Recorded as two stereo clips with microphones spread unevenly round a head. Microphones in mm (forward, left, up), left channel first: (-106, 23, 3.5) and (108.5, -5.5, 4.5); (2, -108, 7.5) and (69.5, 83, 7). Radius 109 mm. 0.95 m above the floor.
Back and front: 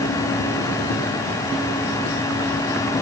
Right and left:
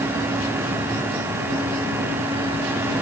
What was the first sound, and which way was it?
Only background noise.